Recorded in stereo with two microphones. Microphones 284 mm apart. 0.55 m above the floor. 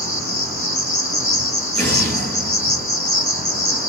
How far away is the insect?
About 1.0 m.